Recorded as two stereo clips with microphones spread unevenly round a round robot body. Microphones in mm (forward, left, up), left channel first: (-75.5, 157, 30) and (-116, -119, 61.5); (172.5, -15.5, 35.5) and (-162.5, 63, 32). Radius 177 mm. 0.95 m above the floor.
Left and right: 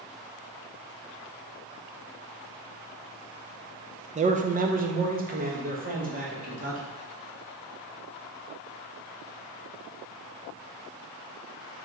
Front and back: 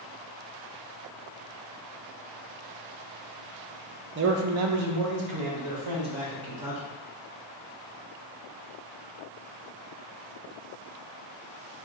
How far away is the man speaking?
About 0.5 m.